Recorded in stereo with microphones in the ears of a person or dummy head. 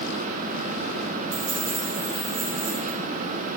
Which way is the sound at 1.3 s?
55° right (ahead or behind).